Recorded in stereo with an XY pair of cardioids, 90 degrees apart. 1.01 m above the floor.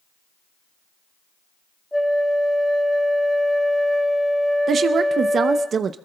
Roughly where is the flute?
Ahead.